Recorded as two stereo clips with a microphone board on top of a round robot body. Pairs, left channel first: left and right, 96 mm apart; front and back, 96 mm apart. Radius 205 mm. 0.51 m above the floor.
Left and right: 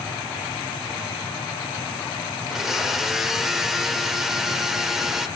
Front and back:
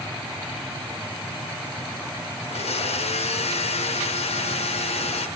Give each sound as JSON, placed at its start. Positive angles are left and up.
{"t": 2.4, "sound": "a blender", "azimuth_deg": -5, "distance_m": 1.0}